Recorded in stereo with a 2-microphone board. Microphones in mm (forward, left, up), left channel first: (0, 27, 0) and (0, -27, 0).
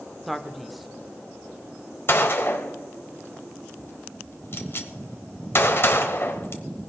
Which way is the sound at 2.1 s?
45° left (ahead or behind).